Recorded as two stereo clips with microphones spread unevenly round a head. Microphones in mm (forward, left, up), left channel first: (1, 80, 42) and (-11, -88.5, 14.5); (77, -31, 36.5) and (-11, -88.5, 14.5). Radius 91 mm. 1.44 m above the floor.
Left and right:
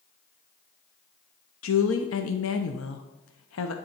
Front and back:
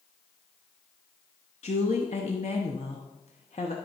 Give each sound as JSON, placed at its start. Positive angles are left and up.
{"t": 1.6, "sound": "a woman speaking", "azimuth_deg": 90, "distance_m": 0.8}